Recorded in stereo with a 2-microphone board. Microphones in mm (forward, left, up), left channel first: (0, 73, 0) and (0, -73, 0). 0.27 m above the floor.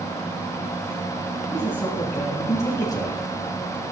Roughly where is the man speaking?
Centre.